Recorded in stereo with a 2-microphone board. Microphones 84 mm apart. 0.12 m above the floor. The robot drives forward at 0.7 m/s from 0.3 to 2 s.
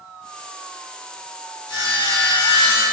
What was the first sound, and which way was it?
Sawing, 60° left (ahead or behind).